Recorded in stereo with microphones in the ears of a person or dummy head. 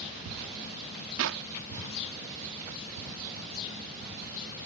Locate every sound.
1.2 s a clap: 75° right (ahead or behind)